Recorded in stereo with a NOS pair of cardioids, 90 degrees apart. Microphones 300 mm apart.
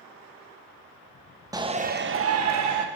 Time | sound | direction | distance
1.5 | a shout | 10° right | 1.1 m